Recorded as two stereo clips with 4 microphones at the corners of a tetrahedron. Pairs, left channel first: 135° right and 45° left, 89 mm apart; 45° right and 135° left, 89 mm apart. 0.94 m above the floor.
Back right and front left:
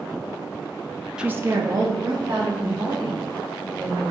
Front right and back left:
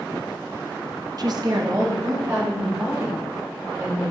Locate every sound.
1.2 s a woman speaking: 125° left, 0.5 m; by 4.0 s 80° left, 4 m